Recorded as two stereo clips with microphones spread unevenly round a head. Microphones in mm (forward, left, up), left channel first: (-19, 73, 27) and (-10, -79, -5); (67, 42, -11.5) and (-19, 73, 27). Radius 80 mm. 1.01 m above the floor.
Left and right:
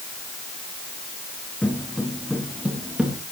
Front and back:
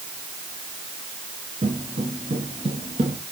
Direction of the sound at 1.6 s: 175° left.